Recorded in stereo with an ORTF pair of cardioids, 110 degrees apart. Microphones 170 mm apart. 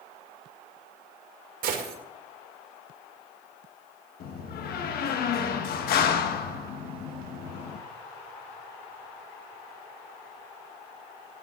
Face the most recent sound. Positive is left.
turn(degrees=65)